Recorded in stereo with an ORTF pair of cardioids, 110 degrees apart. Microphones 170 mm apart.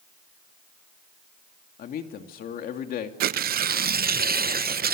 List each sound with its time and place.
1.8 s a man speaking: 60° left, 2.5 m
3.2 s tearing paper: 65° right, 0.6 m